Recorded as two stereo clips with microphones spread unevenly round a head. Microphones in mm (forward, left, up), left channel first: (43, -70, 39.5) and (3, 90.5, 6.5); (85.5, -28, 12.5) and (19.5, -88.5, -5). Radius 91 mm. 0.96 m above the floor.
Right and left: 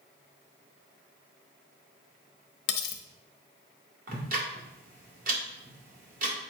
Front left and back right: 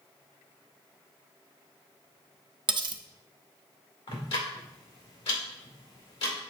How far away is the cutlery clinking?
About 0.7 m.